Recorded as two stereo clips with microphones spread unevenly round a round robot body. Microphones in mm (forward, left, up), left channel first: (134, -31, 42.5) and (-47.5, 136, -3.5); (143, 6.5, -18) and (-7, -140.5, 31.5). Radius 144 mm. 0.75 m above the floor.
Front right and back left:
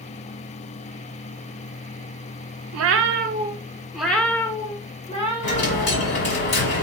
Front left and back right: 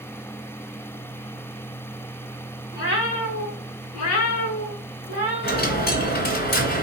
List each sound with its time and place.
2.7 s a cat meowing: 105° left, 0.5 m; by 5.9 s 20° left, 1.6 m
5.4 s a dropped coin: straight ahead, 1.6 m